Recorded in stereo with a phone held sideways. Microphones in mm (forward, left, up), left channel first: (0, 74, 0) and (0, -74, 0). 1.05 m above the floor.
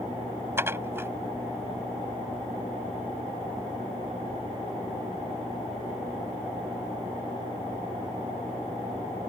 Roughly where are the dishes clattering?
Centre.